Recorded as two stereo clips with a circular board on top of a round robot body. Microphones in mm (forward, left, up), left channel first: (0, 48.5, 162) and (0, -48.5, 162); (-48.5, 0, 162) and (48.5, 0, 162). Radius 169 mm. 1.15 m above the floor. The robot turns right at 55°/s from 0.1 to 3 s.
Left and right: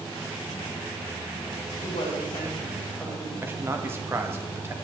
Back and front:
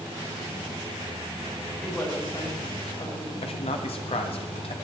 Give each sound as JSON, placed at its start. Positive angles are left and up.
{"t": 1.8, "sound": "a woman speaking", "azimuth_deg": 105, "distance_m": 9.0}
{"t": 3.4, "sound": "a man speaking", "azimuth_deg": -160, "distance_m": 1.6}